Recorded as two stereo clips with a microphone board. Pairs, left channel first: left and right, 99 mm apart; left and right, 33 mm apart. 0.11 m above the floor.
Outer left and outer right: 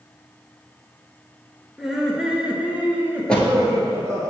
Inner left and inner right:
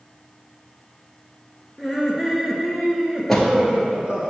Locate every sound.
1.8 s laughter: centre (ahead or behind), 1.5 m; by 4.3 s 35° right (ahead or behind), 1.4 m
3.3 s a door slam: 10° left (ahead or behind), 1.3 m